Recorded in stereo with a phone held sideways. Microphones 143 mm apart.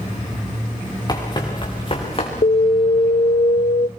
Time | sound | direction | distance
1.1 | running footsteps | 30° left (ahead or behind) | 6 m
2.4 | an alarm | 65° left (ahead or behind) | 0.8 m